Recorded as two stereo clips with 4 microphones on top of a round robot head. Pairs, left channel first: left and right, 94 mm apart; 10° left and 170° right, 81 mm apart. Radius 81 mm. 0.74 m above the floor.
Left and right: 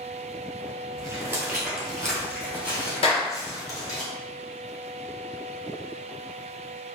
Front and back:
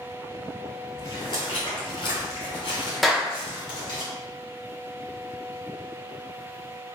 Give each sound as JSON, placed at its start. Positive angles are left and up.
{"t": 1.0, "sound": "footsteps", "azimuth_deg": -50, "distance_m": 0.9}
{"t": 3.0, "sound": "a clap", "azimuth_deg": 100, "distance_m": 0.8}